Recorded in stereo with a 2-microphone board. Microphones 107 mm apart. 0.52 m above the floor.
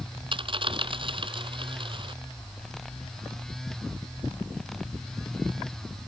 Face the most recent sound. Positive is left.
turn(degrees=-50)  # may be behind; listen again after turning